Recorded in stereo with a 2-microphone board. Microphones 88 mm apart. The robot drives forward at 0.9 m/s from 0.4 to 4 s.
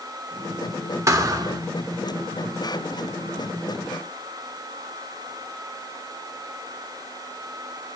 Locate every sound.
1.1 s a thud: 35° right (ahead or behind), 1.1 m; by 1.6 s 50° right (ahead or behind), 0.9 m